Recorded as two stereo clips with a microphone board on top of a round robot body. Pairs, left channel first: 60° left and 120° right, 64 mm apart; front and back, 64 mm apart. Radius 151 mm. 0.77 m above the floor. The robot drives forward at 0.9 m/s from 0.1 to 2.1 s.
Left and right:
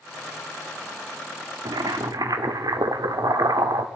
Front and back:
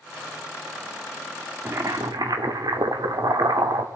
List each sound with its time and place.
1.6 s boiling: 125° right, 0.5 m; by 3.9 s 150° right, 0.8 m